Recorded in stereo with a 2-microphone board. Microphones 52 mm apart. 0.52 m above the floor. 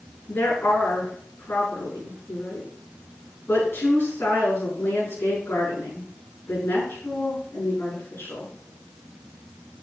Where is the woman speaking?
45° left (ahead or behind), 6 m.